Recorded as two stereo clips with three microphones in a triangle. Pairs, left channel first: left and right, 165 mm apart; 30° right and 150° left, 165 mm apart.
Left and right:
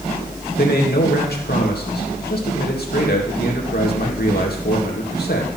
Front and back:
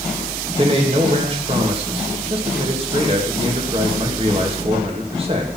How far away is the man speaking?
About 2.0 m.